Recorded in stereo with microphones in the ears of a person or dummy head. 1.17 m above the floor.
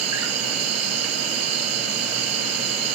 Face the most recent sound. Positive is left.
turn(degrees=-80)